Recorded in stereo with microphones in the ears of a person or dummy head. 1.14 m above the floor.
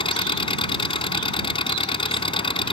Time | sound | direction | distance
0.0 | an engine running | 35° left (ahead or behind) | ?